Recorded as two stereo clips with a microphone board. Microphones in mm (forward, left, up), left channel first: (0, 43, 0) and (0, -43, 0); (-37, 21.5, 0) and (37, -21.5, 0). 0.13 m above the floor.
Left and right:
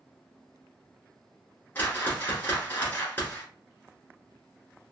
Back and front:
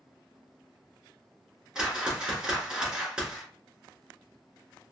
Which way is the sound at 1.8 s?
40° left.